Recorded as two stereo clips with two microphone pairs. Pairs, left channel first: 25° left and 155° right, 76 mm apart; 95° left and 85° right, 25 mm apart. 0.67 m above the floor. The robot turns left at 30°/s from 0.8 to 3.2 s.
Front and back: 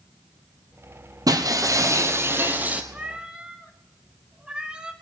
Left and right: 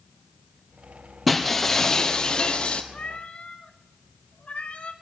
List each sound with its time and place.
1.3 s breaking glass: straight behind, 1.4 m; by 2.8 s 135° left, 1.4 m
2.9 s a cat meowing: 135° left, 1.3 m; by 4.9 s 125° left, 1.3 m